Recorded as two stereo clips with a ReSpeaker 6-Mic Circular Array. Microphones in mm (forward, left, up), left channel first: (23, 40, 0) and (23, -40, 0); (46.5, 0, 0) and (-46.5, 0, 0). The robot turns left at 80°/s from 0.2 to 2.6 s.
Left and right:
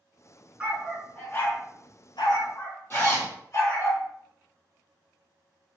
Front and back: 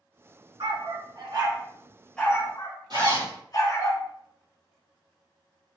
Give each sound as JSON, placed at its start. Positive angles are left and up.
{"t": 0.6, "sound": "a dog barking", "azimuth_deg": -155, "distance_m": 1.2}
{"t": 2.9, "sound": "a zipper", "azimuth_deg": 150, "distance_m": 2.5}